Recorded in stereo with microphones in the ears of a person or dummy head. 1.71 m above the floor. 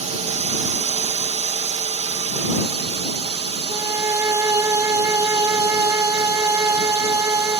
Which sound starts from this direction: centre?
A violin, at 3.7 s.